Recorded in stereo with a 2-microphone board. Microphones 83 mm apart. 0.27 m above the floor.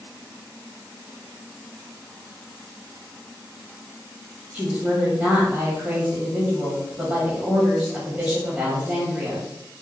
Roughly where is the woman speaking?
Centre.